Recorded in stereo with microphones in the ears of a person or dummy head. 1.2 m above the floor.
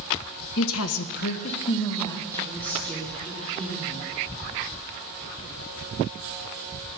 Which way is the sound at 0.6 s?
60° left (ahead or behind).